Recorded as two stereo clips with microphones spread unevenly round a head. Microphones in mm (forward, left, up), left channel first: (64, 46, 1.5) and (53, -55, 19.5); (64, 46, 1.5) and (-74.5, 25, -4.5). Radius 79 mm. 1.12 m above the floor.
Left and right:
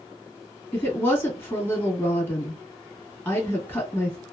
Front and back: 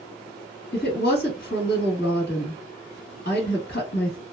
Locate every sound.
0.7 s a woman speaking: 20° left, 1.5 m